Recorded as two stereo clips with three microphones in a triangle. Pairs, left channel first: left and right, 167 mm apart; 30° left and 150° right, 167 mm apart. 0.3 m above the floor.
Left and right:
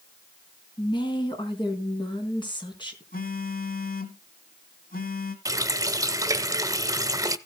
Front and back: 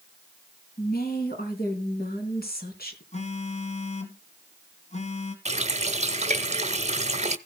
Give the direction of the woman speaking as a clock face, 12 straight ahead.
11 o'clock.